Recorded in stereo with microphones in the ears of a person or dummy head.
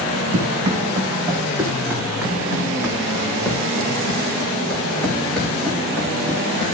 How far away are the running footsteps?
About 5 m.